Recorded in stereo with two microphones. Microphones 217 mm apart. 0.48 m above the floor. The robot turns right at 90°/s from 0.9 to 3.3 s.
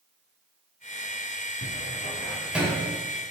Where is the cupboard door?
80° left, 1.5 m; by 2.9 s 35° right (ahead or behind), 1.5 m.